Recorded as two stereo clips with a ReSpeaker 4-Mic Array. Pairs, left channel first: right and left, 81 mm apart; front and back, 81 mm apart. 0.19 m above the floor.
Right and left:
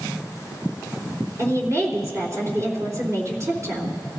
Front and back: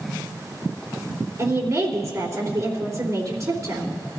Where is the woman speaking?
135° left, 3 m.